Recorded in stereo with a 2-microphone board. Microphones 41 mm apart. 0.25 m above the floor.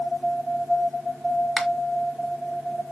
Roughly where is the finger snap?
Centre.